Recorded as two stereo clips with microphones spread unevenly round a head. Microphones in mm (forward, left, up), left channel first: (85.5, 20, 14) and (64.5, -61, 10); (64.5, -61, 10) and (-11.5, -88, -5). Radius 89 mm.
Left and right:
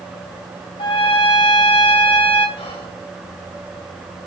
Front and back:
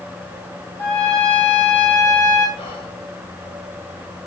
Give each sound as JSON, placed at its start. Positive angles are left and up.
{"t": 0.8, "sound": "a trumpet", "azimuth_deg": 90, "distance_m": 3.0}
{"t": 2.6, "sound": "whispering", "azimuth_deg": 75, "distance_m": 5.0}